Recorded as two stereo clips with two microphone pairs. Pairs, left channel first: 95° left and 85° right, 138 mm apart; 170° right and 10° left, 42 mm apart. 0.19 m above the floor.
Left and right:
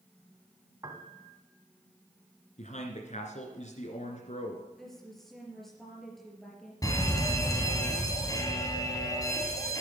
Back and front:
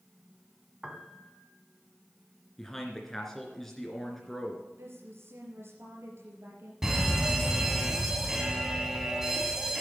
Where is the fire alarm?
80° left, 2 m.